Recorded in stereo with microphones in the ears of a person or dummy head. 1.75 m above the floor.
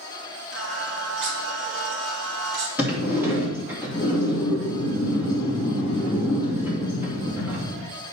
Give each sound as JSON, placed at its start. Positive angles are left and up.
{"t": 0.5, "sound": "singing", "side_deg": -70, "distance_m": 2.0}
{"t": 2.8, "sound": "a sliding door", "side_deg": -10, "distance_m": 1.9}